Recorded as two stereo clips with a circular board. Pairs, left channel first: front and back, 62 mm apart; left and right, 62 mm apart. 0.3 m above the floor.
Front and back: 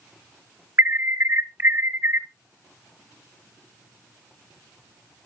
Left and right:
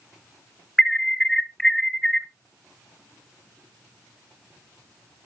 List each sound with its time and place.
0.8 s an alarm: 170° left, 0.9 m